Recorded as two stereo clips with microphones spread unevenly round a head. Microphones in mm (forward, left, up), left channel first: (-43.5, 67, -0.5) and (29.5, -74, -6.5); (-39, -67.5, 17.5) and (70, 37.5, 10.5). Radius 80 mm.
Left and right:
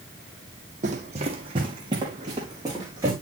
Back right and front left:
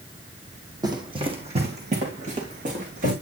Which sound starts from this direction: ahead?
Running footsteps, at 0.8 s.